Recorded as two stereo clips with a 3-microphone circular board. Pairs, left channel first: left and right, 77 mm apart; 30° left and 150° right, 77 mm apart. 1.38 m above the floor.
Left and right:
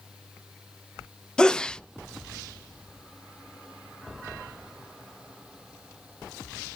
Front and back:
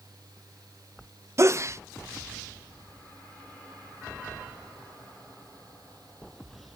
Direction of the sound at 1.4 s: 170° left.